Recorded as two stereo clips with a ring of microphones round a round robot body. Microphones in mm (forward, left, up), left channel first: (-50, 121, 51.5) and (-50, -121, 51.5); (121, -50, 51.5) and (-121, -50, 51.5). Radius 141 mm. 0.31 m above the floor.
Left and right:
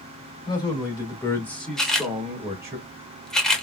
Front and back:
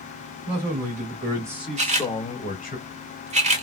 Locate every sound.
0.5 s a man speaking: 155° left, 1.5 m; by 2.8 s 20° right, 1.3 m
1.8 s a camera shutter: 175° left, 0.8 m